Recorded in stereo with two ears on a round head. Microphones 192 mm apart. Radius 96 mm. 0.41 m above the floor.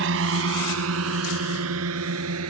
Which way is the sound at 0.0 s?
65° right (ahead or behind).